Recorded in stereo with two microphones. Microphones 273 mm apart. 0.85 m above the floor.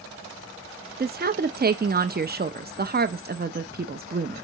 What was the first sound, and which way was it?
A woman speaking, 35° right (ahead or behind).